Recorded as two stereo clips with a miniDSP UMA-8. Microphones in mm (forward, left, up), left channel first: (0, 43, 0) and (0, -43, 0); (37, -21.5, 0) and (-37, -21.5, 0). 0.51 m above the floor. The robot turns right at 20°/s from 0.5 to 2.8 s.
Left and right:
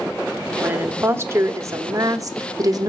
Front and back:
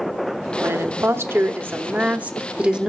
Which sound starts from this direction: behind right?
A woman speaking, at 0.6 s.